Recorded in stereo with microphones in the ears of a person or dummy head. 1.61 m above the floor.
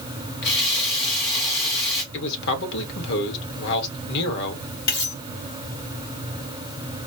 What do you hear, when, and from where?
0.4 s a running tap: 30° left (ahead or behind), 0.7 m
2.1 s a man speaking: 60° left (ahead or behind), 1.3 m
4.9 s cutlery clinking: 25° left (ahead or behind), 1.4 m